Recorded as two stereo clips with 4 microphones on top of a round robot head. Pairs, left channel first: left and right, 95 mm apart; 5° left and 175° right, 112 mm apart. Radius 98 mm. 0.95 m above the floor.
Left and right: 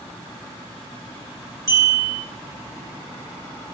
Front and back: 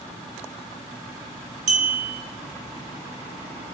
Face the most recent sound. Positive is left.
turn(degrees=-150)